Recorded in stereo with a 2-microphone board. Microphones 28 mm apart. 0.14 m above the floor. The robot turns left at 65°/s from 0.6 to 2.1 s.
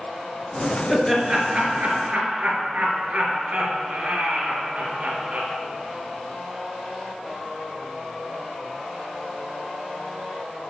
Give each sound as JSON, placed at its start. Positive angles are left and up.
{"t": 0.9, "sound": "laughter", "side_deg": -10, "distance_m": 2.5}